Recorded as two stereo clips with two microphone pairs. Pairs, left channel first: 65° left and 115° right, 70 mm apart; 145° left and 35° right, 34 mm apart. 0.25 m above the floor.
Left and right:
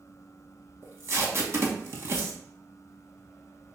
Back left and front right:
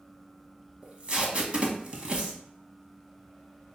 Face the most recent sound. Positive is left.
turn(degrees=-80)